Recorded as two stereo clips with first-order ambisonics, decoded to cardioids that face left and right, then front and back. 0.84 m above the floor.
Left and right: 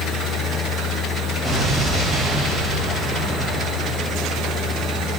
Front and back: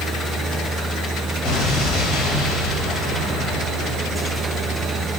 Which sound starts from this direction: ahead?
An explosion, at 1.4 s.